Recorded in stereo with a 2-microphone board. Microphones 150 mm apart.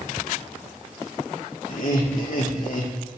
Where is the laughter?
65° left (ahead or behind), 1.6 m.